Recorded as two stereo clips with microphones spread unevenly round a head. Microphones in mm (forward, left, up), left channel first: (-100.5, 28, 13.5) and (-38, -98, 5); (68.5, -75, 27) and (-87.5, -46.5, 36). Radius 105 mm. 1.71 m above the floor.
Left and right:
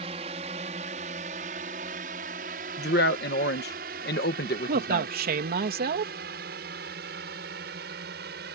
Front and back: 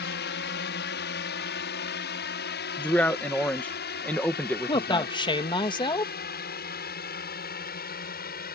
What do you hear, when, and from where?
0.0 s a drone: 5° right; by 8.6 s 35° right
2.8 s a man speaking: 75° left
4.7 s a man speaking: 70° right